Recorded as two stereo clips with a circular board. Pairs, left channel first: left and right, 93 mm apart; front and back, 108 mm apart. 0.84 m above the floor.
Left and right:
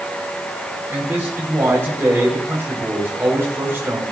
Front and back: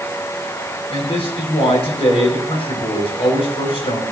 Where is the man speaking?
25° right, 4.5 m.